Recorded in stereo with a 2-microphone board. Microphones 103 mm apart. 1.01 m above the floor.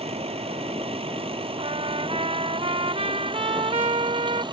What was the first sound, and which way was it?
A vehicle, 75° right (ahead or behind).